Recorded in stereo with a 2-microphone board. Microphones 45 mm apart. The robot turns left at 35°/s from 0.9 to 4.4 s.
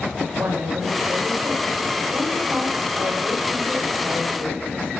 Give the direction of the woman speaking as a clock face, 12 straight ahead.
3 o'clock.